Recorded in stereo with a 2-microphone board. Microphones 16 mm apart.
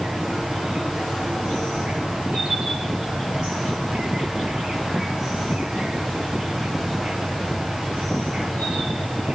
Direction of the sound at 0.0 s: 70° right (ahead or behind).